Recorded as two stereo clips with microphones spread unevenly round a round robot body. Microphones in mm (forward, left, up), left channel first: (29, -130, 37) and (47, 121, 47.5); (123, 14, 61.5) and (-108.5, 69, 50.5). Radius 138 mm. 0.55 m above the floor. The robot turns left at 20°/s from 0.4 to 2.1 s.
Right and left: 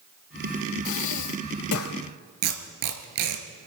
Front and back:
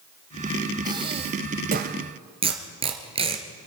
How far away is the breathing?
About 1.0 m.